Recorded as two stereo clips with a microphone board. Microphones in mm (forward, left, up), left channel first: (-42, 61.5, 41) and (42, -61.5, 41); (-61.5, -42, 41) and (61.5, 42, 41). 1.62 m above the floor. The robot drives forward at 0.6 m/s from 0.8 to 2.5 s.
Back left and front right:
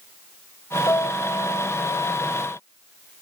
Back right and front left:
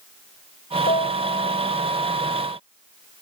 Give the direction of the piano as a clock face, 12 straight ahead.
6 o'clock.